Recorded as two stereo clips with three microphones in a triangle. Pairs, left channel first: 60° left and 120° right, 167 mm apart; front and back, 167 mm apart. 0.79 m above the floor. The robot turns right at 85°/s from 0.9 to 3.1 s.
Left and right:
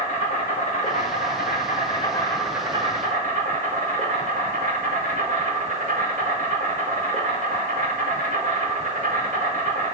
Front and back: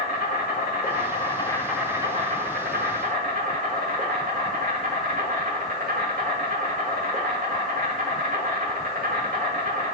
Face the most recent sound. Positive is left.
turn(degrees=-155)